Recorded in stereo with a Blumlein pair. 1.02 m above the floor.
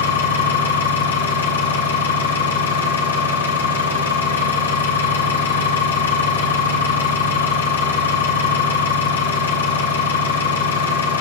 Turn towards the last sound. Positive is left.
turn(degrees=65)